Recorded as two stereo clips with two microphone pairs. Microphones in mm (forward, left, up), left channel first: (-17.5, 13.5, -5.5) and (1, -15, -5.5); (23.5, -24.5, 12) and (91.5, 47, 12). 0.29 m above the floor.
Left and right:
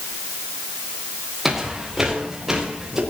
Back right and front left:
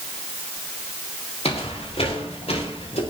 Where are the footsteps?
140° right, 5 m; by 3.0 s 130° right, 6 m.